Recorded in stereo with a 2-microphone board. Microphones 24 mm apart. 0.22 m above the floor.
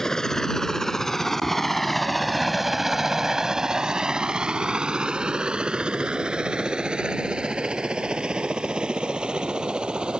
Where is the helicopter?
20° left (ahead or behind); by 10.2 s 35° right (ahead or behind).